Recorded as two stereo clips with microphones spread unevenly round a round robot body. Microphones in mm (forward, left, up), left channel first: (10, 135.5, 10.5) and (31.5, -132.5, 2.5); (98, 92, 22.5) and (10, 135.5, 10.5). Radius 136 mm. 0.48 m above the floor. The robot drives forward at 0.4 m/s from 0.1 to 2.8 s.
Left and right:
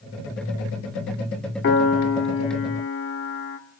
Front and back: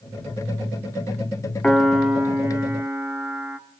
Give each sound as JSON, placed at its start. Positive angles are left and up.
{"t": 1.6, "sound": "a piano", "azimuth_deg": 65, "distance_m": 0.8}